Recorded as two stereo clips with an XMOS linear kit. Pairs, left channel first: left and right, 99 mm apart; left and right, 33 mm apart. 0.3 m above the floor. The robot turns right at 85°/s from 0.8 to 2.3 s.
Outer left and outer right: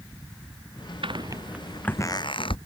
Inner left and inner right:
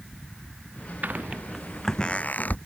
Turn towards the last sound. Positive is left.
turn(degrees=60)  # may be behind; listen again after turning